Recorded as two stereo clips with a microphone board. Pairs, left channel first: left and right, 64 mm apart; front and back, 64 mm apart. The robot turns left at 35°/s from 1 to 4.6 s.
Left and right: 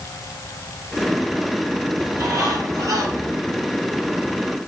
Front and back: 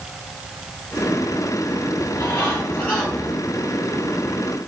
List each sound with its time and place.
2.0 s a bird: 40° right, 9 m; by 3.4 s 85° right, 9 m